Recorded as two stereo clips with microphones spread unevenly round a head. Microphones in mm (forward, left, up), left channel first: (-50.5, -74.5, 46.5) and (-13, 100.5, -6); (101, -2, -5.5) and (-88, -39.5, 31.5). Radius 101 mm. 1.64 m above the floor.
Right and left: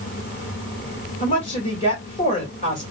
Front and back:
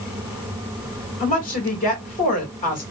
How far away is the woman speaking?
About 1.9 m.